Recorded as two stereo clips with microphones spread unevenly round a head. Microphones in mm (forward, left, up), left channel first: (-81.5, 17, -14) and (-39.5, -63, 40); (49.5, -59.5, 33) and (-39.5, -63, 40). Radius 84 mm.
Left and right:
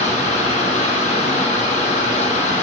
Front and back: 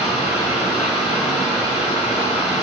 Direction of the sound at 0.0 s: 70° left.